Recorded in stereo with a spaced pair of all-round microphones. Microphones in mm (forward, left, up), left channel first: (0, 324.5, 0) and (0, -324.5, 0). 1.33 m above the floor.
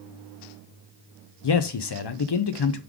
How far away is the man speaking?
About 0.5 m.